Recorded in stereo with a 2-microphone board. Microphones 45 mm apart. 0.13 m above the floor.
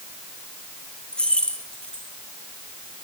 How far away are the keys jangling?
About 2.5 m.